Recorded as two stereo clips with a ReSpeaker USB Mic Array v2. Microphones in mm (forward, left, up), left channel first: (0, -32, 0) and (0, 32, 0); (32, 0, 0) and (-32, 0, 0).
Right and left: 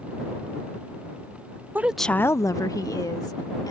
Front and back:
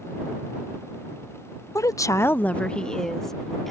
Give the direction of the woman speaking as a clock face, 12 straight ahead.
11 o'clock.